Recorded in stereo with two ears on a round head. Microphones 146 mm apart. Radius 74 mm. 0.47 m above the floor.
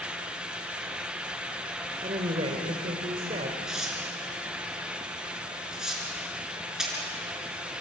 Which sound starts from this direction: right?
A woman speaking, at 2.0 s.